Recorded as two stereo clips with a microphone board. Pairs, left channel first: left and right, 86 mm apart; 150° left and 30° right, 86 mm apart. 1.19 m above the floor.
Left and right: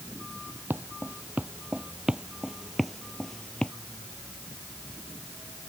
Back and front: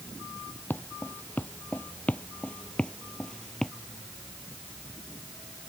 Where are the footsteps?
150° right; by 3.7 s 80° left.